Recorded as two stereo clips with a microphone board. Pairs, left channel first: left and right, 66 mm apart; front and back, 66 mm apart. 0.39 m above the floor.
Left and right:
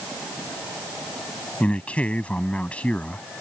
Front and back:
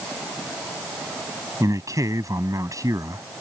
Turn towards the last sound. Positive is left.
turn(degrees=160)